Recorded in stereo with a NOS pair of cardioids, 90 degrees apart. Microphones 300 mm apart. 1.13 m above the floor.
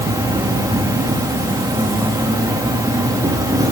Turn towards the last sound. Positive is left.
turn(degrees=-10)